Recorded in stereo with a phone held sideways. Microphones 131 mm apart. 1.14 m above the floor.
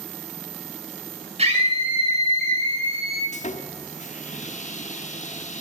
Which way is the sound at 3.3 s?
65° left (ahead or behind).